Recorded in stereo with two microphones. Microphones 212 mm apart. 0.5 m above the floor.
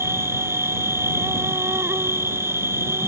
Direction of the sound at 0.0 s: 10° right (ahead or behind).